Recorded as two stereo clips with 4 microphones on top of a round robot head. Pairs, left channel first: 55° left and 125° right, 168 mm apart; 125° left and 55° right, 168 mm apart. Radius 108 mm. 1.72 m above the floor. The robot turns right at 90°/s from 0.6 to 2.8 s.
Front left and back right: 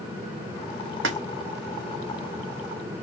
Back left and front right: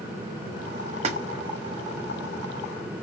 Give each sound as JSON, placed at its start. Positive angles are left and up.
{"t": 1.0, "sound": "a splash", "azimuth_deg": -110, "distance_m": 0.8}